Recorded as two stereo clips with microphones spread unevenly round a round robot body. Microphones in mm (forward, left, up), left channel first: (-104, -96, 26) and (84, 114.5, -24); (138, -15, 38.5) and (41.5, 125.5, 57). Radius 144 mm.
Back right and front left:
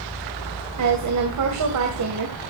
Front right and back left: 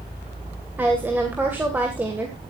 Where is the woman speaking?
40° left, 2.5 m.